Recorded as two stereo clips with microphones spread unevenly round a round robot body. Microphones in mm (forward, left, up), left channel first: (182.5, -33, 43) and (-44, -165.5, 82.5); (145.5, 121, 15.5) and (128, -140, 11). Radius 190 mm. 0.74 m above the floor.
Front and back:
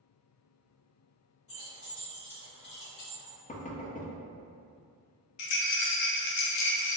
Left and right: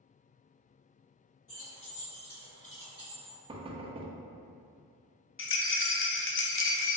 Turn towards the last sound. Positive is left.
turn(degrees=40)